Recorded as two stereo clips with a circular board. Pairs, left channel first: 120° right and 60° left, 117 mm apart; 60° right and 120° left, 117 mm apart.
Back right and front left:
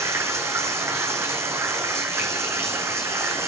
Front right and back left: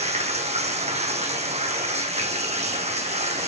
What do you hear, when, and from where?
0.0 s running water: 125° left, 1.4 m